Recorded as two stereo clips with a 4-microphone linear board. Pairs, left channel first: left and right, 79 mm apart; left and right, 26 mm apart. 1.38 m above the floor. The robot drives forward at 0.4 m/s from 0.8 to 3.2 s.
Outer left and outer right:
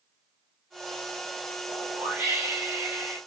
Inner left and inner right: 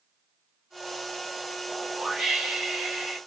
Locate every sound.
1.7 s a whoosh: 30° right (ahead or behind), 1.1 m; by 3.2 s 20° right (ahead or behind), 1.6 m